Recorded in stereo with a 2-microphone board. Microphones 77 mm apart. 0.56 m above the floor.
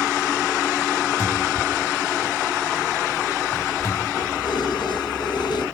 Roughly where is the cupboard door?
Left.